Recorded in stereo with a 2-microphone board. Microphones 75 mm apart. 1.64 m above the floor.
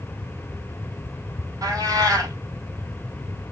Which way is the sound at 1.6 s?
55° right (ahead or behind).